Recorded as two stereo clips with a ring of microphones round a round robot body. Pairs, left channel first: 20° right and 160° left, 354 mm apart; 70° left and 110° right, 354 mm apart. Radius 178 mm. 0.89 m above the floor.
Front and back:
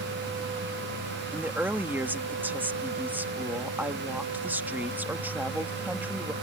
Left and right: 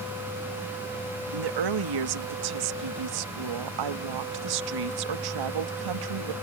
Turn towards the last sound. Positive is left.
turn(degrees=-120)